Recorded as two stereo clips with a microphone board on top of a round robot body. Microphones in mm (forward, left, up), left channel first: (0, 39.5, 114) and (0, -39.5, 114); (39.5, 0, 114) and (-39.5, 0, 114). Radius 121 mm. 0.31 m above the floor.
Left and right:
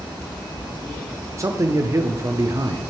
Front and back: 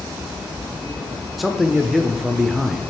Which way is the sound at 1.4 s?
90° right.